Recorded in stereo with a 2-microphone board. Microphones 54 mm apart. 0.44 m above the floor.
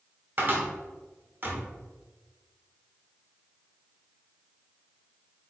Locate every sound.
0.4 s a cupboard door: 40° right (ahead or behind), 0.8 m